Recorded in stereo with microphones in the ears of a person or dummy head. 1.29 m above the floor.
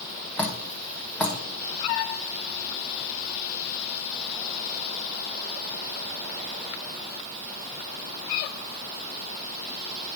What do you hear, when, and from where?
0.4 s dripping: 5° left (ahead or behind), 1.0 m